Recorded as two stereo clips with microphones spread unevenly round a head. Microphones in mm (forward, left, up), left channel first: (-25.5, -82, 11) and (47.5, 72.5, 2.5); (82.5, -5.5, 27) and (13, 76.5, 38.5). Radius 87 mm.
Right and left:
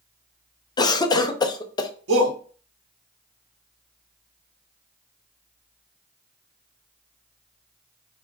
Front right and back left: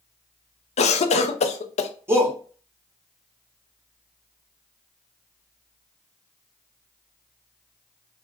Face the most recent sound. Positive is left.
turn(degrees=60)